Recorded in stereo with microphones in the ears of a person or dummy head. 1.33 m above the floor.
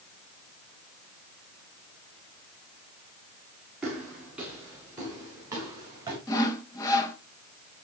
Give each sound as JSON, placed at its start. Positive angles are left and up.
{"t": 3.8, "sound": "footsteps", "side_deg": 0, "distance_m": 7.5}
{"t": 6.3, "sound": "sawing", "side_deg": 15, "distance_m": 1.1}